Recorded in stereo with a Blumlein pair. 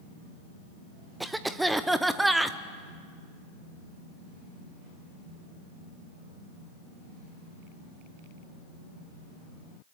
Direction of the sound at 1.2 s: 5° right.